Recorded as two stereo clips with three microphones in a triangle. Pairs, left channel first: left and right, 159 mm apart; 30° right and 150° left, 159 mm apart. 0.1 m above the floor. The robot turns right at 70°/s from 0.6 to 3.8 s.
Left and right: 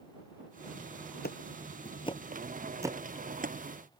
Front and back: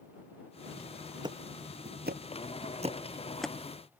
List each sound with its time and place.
1.2 s ticking: 90° left; by 3.5 s 110° right